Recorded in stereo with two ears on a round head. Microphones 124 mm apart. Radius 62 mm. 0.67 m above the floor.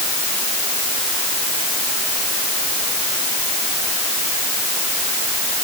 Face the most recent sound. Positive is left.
No sound to turn to.